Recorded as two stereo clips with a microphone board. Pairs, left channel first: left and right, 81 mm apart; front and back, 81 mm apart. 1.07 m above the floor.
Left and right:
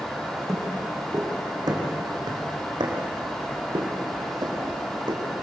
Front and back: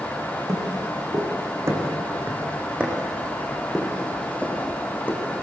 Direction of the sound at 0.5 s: 140° right.